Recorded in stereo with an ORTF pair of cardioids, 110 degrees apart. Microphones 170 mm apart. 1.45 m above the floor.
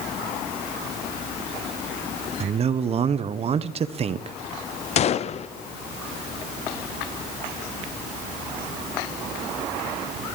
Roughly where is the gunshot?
Ahead left.